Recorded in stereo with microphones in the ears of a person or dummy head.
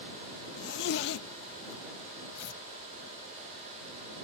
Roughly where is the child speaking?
I don't hear a child speaking.